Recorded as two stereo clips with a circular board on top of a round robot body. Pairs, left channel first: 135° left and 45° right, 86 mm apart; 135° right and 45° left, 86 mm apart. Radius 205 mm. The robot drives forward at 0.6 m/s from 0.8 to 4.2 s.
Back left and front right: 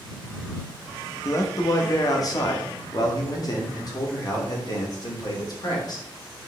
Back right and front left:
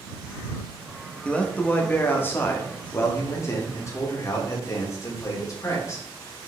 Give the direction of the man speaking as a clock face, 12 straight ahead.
7 o'clock.